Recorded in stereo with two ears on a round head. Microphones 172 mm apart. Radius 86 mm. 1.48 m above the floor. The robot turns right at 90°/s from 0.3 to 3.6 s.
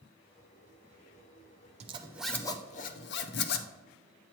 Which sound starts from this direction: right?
A zipper, at 1.8 s.